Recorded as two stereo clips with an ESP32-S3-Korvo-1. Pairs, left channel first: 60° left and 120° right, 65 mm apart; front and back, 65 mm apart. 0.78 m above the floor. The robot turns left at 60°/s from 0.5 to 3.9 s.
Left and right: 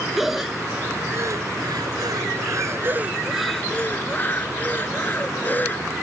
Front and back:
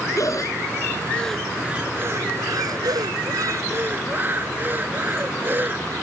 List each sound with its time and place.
0.2 s breathing: 35° right; by 5.9 s 120° left